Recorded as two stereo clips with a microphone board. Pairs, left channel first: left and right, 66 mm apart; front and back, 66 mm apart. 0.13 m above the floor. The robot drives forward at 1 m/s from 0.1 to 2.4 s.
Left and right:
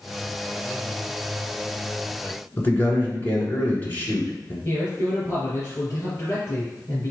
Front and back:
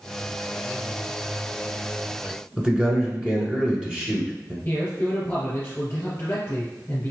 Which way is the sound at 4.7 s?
50° left.